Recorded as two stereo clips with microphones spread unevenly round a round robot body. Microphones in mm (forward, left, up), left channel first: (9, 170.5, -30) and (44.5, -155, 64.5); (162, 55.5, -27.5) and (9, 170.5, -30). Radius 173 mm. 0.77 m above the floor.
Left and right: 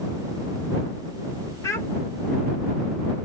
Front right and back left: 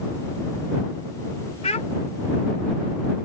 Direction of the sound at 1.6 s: 20° left.